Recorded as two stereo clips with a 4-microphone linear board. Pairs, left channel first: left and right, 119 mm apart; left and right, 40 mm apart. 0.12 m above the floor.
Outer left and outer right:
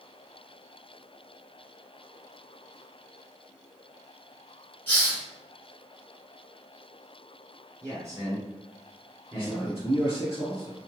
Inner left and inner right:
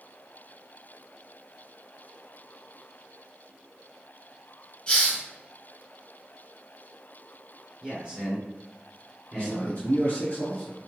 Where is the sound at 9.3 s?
25° left (ahead or behind), 1.6 m.